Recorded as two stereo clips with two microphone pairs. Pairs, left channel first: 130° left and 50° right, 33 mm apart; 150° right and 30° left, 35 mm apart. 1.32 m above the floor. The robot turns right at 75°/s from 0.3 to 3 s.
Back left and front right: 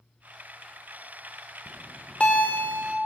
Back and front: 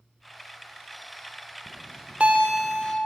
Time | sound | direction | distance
1.7 | a bell | 45° left | 0.8 m